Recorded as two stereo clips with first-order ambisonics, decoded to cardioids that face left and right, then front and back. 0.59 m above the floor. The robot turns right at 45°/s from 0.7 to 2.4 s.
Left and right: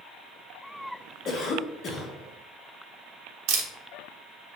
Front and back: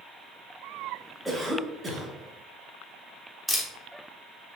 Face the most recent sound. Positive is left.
turn(degrees=-90)